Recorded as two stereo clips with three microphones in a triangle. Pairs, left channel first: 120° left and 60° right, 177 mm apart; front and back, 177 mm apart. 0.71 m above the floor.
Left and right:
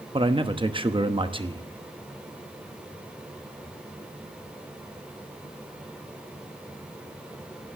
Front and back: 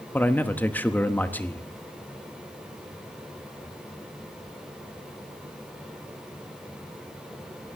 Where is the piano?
No piano in this recording.